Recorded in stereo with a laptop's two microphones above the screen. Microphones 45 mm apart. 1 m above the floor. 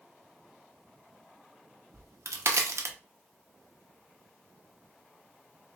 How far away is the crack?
About 0.8 m.